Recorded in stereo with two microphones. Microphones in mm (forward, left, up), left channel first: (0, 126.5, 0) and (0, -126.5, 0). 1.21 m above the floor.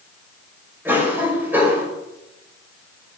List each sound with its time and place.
0.8 s a cough: 10° right (ahead or behind), 5 m